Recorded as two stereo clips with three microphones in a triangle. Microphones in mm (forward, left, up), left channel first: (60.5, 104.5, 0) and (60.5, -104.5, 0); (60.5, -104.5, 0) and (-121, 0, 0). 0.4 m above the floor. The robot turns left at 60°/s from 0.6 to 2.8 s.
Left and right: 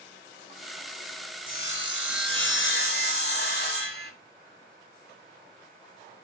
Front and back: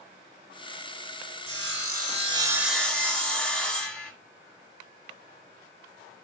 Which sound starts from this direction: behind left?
Sawing, at 1.5 s.